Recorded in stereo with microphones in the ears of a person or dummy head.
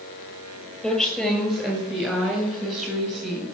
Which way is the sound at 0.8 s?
Centre (ahead or behind).